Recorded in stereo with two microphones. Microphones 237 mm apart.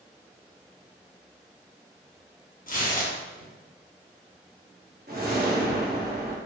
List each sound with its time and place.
2.7 s tearing paper: 35° left (ahead or behind), 0.7 m
5.1 s a whoosh: 40° right (ahead or behind), 0.8 m